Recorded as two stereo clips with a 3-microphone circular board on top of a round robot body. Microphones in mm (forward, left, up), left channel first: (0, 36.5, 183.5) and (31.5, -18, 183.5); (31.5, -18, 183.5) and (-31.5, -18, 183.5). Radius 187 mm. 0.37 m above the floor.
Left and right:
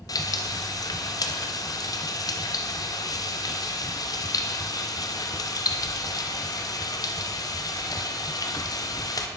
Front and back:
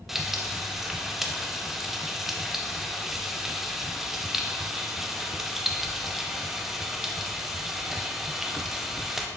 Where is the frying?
95° left, 0.7 m.